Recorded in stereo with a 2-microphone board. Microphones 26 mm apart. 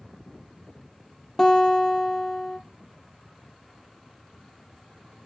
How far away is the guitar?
About 1.9 m.